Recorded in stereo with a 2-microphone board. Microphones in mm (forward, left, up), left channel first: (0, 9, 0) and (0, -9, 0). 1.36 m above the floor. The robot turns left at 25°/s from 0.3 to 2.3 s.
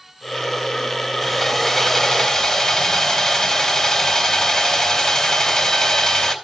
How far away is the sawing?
About 2.5 m.